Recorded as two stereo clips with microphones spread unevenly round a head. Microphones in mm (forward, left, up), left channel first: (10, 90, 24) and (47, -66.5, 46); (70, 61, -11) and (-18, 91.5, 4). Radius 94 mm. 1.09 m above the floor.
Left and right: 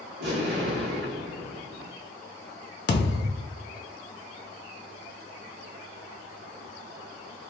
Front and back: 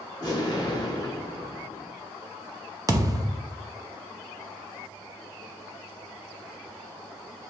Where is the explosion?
85° right, 1.7 m.